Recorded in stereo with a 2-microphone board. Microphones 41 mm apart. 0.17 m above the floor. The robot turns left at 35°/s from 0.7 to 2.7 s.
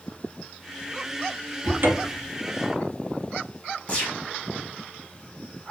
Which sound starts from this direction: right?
A cupboard door, at 1.6 s.